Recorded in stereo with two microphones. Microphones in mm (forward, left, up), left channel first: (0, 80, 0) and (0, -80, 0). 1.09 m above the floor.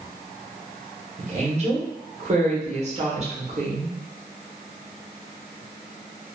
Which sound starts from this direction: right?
A woman speaking, at 1.2 s.